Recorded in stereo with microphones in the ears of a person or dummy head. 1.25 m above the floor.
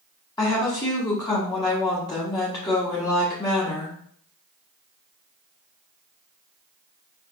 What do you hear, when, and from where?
0.4 s a woman speaking: 20° left (ahead or behind), 1.3 m